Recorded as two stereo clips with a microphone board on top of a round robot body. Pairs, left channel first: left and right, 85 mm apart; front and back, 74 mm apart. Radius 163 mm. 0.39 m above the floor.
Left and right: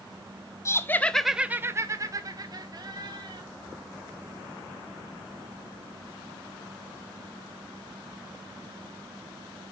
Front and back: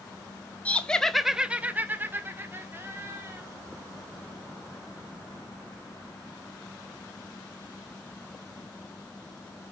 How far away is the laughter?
About 1.0 m.